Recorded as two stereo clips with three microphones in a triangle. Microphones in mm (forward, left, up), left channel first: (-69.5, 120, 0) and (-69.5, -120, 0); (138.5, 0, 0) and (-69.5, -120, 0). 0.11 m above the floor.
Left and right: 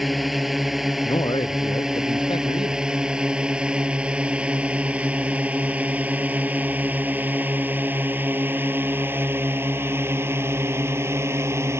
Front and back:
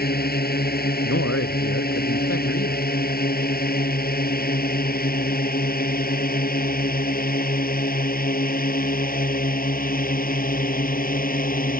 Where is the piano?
No piano in this recording.